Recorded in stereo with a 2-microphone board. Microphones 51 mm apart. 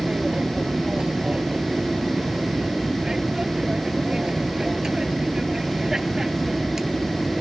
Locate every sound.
0.0 s an aircraft: 20° right (ahead or behind); by 7.4 s 10° right (ahead or behind)